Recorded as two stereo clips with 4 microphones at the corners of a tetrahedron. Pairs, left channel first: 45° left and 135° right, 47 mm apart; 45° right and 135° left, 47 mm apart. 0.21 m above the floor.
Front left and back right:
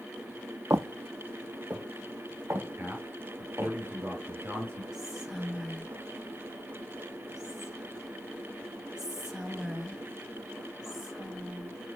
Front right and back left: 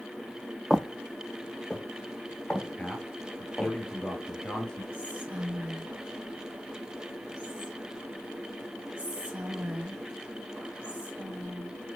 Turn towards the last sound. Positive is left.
turn(degrees=155)